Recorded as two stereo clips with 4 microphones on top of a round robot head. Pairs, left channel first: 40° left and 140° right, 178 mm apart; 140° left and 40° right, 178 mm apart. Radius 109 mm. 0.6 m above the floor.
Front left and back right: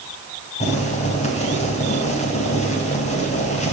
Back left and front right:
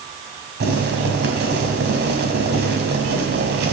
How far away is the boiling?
About 3.5 m.